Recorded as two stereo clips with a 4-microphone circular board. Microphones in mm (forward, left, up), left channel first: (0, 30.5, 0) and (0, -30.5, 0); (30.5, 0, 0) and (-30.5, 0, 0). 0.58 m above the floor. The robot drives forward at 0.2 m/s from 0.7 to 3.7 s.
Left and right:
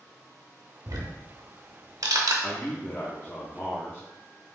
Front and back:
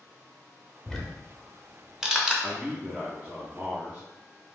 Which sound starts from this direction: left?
A man speaking, at 2.4 s.